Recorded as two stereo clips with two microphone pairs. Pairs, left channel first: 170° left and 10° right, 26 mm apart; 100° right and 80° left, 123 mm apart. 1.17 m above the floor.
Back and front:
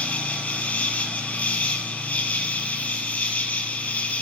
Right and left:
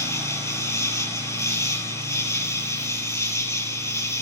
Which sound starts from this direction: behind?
An insect, at 0.0 s.